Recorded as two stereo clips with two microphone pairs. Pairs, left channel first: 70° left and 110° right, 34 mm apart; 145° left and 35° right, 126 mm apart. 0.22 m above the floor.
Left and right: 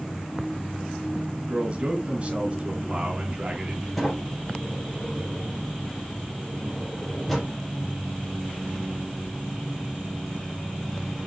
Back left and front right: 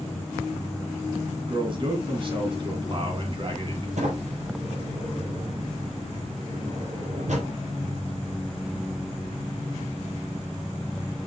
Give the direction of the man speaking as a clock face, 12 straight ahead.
2 o'clock.